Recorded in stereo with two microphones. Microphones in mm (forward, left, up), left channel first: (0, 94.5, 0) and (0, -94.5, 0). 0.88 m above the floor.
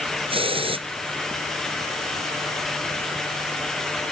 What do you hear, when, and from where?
0.3 s a hiss: 30° right (ahead or behind)